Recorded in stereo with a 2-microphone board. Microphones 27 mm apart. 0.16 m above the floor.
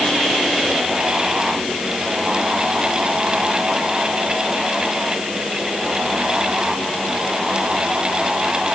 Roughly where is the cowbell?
I don't hear a cowbell.